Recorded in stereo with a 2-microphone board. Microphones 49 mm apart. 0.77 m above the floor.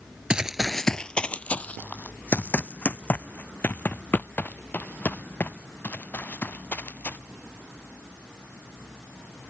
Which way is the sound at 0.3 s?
20° right (ahead or behind).